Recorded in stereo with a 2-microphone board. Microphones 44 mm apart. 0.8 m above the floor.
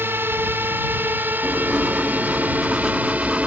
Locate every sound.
0.0 s a drone: 60° right (ahead or behind); by 3.5 s 35° right (ahead or behind)
1.4 s writing: 10° right (ahead or behind)